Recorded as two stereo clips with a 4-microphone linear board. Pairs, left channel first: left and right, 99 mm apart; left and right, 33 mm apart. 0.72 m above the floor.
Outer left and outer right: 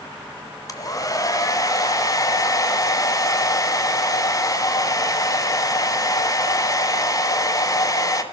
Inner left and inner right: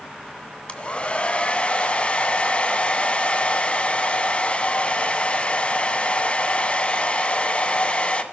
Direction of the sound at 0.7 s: 35° left (ahead or behind).